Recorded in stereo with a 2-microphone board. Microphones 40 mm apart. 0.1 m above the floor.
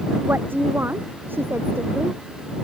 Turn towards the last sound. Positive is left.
turn(degrees=-60)  # may be behind; listen again after turning